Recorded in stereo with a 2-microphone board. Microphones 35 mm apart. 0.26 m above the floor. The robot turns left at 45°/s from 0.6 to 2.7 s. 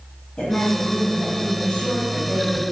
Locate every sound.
0.4 s a woman speaking: 110° left, 1.6 m; by 2.6 s 20° left, 1.6 m